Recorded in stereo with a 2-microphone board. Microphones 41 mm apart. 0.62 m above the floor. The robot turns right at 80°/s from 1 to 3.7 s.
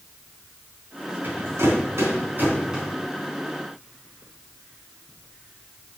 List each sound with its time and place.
1.2 s a rattle: 40° right (ahead or behind), 3.5 m; by 2.9 s 10° right (ahead or behind), 3.5 m